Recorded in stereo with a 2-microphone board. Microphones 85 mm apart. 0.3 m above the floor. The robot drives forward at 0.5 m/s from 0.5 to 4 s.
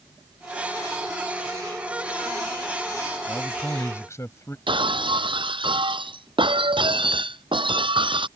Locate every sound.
3.3 s a man speaking: 35° left (ahead or behind)
4.7 s breaking glass: 85° right